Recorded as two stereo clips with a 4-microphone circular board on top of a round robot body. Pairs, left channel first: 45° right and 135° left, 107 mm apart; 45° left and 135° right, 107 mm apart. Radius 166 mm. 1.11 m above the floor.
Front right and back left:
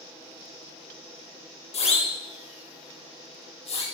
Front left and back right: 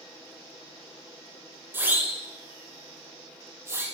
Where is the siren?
65° right, 8.5 m; by 3.9 s 70° right, 9.5 m.